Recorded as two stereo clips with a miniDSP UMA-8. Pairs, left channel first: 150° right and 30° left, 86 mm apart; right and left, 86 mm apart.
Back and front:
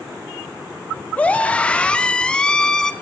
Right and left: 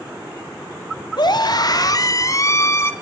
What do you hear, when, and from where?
1.2 s a scream: 80° right, 2.5 m; by 2.9 s 75° right, 1.5 m